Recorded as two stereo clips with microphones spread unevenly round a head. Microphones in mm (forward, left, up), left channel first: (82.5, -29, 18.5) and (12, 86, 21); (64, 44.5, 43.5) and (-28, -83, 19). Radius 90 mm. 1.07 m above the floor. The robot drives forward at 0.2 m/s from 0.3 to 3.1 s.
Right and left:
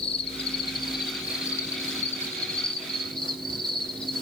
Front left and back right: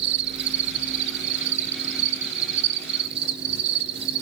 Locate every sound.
0.0 s an insect: 120° right, 0.7 m; by 4.2 s 145° right, 1.1 m